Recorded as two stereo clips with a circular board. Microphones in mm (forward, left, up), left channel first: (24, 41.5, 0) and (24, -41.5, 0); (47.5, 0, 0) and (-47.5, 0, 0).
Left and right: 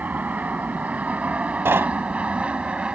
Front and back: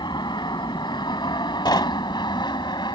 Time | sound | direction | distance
0.0 | an aircraft | 20° right | ?
1.6 | knocking | 30° right | ?